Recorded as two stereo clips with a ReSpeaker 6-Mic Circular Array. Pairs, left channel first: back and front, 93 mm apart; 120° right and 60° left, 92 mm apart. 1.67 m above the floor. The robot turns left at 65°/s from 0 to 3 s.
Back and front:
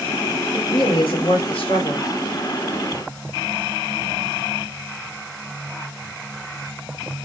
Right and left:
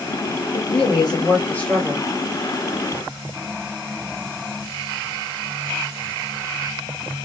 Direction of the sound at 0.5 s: 125° right.